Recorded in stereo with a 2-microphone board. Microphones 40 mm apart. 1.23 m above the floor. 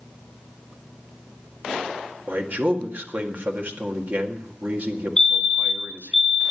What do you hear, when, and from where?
2.3 s a man speaking: 50° right (ahead or behind), 1.9 m
5.2 s a fire alarm: 15° left (ahead or behind), 1.3 m